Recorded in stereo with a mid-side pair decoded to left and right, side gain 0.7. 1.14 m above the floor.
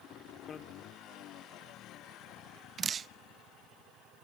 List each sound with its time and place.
0.5 s a bicycle bell: 40° left, 2 m
2.8 s dripping: 30° right, 0.7 m